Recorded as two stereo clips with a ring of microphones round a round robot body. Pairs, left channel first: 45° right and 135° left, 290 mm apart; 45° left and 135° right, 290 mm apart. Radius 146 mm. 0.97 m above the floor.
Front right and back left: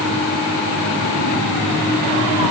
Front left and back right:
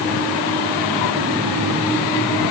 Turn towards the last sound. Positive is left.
No sound to turn to.